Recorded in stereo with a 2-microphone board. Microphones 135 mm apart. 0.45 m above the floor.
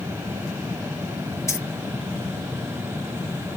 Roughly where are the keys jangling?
Left.